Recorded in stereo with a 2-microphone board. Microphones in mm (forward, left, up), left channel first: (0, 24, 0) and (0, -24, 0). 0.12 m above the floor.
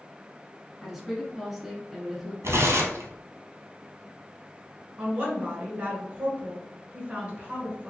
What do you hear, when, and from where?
0.8 s a woman speaking: 5° right (ahead or behind), 1.2 m
2.4 s tearing paper: 75° right (ahead or behind), 0.8 m
5.0 s a woman speaking: 25° right (ahead or behind), 1.3 m